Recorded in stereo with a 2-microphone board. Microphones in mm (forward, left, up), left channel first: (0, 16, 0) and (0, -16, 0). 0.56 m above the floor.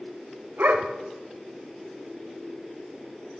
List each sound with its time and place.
0.6 s a dog barking: 80° right, 0.9 m